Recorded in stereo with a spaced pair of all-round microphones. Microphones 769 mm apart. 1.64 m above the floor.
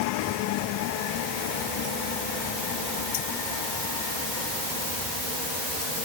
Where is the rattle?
I don't hear a rattle.